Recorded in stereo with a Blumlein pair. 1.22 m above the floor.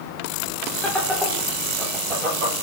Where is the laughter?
10° left, 0.8 m; by 2.5 s 30° right, 1.5 m.